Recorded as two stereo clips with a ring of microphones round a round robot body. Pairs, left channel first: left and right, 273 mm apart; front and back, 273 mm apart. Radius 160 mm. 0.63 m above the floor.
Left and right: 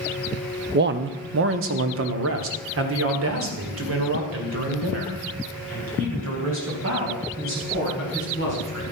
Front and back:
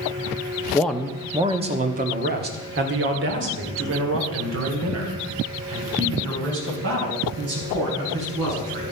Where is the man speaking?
80° right, 0.8 m; by 8.8 s 140° right, 6 m.